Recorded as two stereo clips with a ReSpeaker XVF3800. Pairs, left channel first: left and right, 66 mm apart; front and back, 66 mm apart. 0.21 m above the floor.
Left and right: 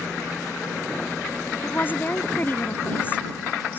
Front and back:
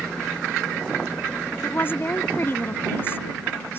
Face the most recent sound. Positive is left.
turn(degrees=40)